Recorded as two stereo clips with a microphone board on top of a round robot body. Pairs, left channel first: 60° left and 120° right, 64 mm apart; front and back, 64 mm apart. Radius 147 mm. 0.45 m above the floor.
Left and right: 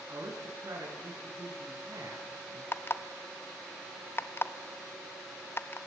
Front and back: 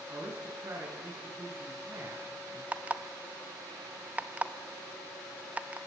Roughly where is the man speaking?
Behind right.